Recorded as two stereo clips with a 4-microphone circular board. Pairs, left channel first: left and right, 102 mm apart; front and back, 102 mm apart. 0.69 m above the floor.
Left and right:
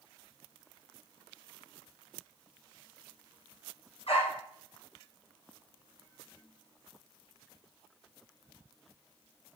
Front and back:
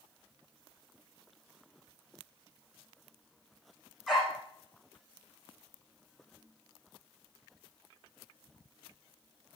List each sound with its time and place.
4.1 s a dog barking: 90° left, 8 m